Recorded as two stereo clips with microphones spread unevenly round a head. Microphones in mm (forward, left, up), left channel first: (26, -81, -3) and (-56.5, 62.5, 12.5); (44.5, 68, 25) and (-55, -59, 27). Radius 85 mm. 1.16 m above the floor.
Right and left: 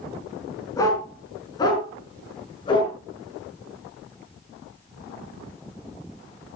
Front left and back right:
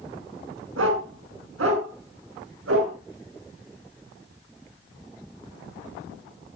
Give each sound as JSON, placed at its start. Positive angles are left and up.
{"t": 0.8, "sound": "a dog barking", "azimuth_deg": -130, "distance_m": 6.0}